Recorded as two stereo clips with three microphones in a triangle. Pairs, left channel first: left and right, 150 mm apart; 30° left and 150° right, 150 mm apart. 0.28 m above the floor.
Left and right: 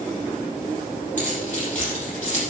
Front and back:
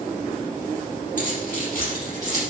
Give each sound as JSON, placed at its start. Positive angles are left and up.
{"t": 1.2, "sound": "keys jangling", "azimuth_deg": 55, "distance_m": 5.5}